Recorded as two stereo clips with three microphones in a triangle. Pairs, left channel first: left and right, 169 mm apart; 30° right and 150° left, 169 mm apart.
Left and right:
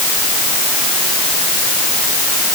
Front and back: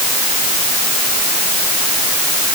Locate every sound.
Only background noise.